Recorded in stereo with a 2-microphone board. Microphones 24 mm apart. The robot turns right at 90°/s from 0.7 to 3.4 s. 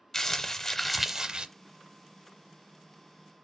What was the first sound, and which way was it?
Crumpling, 155° left.